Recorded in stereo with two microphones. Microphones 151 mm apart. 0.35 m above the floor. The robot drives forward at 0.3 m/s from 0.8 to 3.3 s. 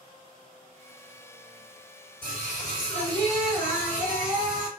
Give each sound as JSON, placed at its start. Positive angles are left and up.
{"t": 2.2, "sound": "singing", "side_deg": 10, "distance_m": 1.9}